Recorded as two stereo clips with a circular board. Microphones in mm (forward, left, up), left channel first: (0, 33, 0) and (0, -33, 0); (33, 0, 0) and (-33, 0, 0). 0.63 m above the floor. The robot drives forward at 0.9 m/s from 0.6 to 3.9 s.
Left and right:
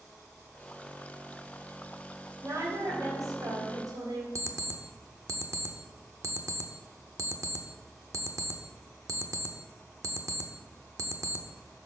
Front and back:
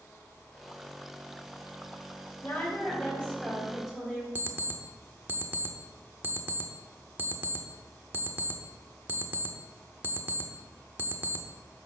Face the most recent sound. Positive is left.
turn(degrees=-125)